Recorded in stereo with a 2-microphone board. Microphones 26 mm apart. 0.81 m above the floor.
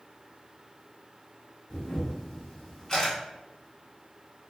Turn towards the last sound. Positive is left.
turn(degrees=20)  # may be behind; listen again after turning